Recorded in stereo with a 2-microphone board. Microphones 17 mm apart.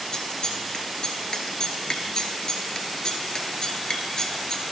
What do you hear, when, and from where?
0.1 s scissors: 45° left (ahead or behind), 1.0 m